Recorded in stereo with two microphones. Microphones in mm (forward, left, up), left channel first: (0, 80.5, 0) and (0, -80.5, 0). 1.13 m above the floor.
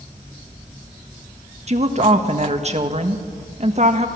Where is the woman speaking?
45° right (ahead or behind), 1.6 m.